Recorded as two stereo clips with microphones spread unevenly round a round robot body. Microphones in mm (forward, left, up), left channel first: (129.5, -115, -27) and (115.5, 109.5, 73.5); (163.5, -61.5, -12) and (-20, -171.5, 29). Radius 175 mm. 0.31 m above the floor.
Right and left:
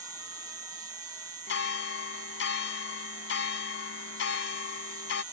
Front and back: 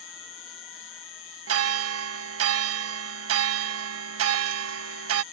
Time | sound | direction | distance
0.0 | an insect | 30° left | ?
1.5 | a bell | 130° right | ?